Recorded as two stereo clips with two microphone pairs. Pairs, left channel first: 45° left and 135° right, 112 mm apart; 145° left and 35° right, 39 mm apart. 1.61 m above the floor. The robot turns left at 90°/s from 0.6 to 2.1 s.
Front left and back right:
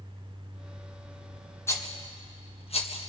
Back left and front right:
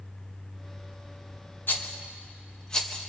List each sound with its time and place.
1.7 s a rattle: 110° left, 1.8 m; by 3.1 s 70° left, 1.8 m